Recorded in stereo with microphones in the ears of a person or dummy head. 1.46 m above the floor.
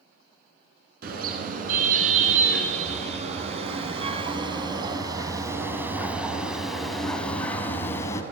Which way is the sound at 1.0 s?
55° right (ahead or behind).